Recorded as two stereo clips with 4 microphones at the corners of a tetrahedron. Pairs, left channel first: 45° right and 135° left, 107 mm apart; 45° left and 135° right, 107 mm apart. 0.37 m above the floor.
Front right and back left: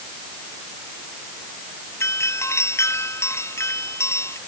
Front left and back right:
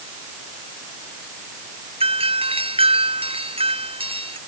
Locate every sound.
2.0 s a doorbell: 110° right